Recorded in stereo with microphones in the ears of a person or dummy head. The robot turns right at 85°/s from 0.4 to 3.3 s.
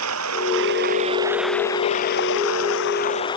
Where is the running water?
90° right; by 3.4 s 155° left.